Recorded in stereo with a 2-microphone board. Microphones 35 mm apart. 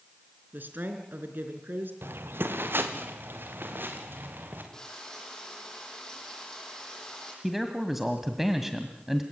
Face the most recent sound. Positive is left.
turn(degrees=-5)  # may be behind; listen again after turning